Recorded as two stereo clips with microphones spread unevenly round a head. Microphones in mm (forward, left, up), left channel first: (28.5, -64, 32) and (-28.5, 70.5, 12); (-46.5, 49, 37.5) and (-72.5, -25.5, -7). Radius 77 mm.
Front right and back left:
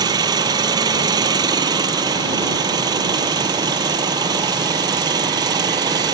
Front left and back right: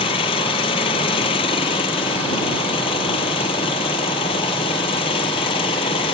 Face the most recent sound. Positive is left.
turn(degrees=50)